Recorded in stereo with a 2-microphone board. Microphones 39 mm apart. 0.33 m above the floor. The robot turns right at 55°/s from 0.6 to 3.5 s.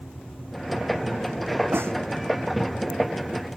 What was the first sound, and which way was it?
A snare drum, 75° right (ahead or behind).